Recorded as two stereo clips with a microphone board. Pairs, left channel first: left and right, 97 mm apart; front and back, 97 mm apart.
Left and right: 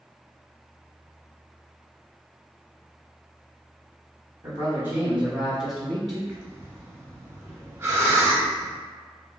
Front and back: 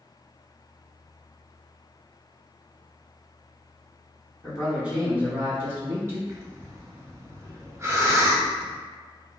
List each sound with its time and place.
4.4 s a man speaking: 105° right, 1.9 m; by 6.2 s 170° left, 1.8 m
6.3 s breathing: 140° right, 0.6 m